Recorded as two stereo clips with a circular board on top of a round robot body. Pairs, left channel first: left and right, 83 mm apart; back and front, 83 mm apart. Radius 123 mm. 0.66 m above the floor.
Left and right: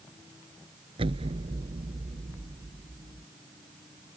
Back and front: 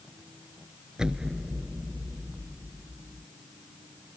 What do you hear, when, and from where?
1.0 s an explosion: 80° right